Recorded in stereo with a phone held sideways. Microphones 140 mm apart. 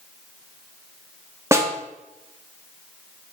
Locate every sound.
1.5 s a snare drum: 20° right (ahead or behind), 1.8 m